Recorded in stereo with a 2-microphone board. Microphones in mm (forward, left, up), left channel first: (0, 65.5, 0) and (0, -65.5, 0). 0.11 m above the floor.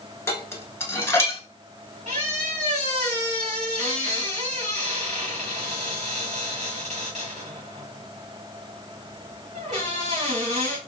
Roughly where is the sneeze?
No sneeze in this recording.